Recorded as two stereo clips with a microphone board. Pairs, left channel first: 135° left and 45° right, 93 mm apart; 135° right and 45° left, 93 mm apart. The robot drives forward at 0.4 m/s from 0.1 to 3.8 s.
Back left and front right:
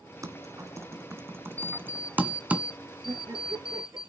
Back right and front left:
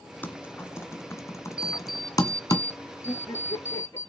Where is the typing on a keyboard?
75° right, 1.9 m; by 2.6 s 115° right, 1.9 m.